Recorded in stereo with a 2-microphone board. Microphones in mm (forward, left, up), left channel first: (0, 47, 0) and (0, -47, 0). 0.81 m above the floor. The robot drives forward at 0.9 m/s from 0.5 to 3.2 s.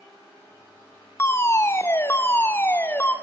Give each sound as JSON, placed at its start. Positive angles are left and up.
{"t": 1.2, "sound": "a fire alarm", "side_deg": 30, "distance_m": 1.5}